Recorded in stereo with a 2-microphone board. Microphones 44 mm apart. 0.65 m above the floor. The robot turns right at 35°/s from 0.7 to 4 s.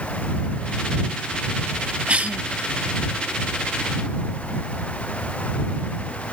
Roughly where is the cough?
Right.